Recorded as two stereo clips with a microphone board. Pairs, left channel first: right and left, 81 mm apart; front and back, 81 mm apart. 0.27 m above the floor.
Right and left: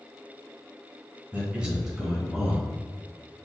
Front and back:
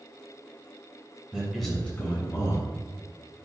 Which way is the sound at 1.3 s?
125° left.